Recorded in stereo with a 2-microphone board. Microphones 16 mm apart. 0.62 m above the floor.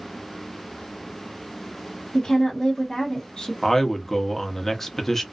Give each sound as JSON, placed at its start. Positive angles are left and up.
{"t": 2.1, "sound": "a woman speaking", "side_deg": 40, "distance_m": 0.9}
{"t": 3.6, "sound": "a man speaking", "side_deg": 15, "distance_m": 0.7}